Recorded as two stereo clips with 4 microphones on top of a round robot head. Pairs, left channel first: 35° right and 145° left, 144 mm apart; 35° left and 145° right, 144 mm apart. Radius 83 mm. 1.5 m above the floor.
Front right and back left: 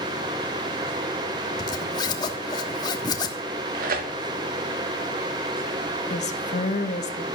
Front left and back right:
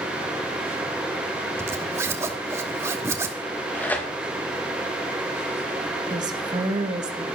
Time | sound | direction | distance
1.6 | a zipper | 80° right | 1.1 m
3.4 | tearing paper | 115° left | 2.5 m
6.1 | a woman speaking | 80° right | 1.9 m